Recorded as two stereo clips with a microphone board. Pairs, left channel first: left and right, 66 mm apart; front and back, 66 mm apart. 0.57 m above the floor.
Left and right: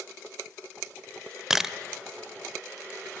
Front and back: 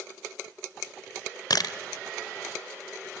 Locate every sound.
1.5 s a camera shutter: 5° right, 0.8 m